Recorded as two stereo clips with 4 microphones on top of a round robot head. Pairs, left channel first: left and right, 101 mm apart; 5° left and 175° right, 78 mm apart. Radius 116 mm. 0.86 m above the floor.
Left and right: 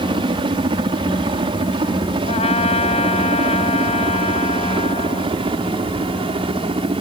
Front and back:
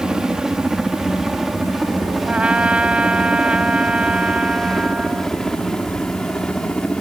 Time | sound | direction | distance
0.0 | a helicopter | 95° right | ?
2.2 | a trumpet | 110° left | ?